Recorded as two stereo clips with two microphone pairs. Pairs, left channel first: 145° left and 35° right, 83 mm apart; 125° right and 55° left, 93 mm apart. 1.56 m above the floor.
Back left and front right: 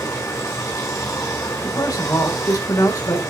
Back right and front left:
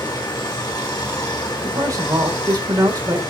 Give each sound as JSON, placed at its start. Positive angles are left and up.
{"t": 0.0, "sound": "running water", "azimuth_deg": -170, "distance_m": 2.5}
{"t": 1.6, "sound": "a man speaking", "azimuth_deg": 100, "distance_m": 1.9}